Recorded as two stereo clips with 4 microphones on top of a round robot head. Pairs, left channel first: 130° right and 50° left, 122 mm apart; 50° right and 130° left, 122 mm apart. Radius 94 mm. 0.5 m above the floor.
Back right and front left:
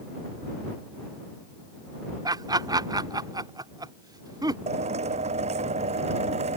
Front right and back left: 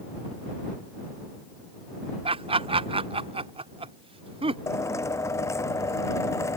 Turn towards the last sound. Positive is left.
turn(degrees=15)